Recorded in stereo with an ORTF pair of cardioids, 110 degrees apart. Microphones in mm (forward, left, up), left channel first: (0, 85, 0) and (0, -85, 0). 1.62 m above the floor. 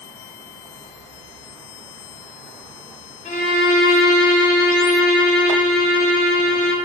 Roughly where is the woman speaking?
No woman speaking in this recording.